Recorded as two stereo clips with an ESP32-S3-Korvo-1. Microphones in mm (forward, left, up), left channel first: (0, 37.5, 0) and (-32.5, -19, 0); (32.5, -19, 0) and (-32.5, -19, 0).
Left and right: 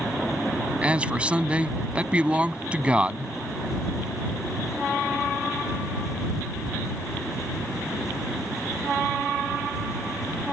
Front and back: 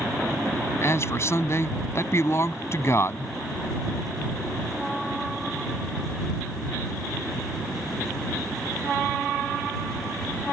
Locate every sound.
0.8 s a man speaking: 50° right